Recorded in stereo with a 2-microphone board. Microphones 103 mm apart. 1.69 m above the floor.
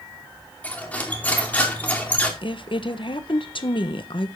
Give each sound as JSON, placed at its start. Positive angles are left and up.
{"t": 0.6, "sound": "cutlery clinking", "side_deg": 15, "distance_m": 2.5}
{"t": 2.4, "sound": "a woman speaking", "side_deg": 60, "distance_m": 1.2}